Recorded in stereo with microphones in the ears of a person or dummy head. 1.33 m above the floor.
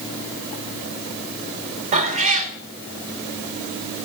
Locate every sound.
1.9 s a cat meowing: 40° right (ahead or behind), 1.9 m